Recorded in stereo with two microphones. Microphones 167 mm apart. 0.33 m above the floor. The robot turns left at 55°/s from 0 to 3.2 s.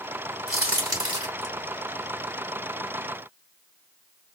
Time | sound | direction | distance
0.5 | a crack | 5° left (ahead or behind) | 2 m